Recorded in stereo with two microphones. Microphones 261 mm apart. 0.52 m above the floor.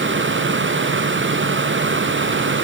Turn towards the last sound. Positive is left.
No sound to turn to.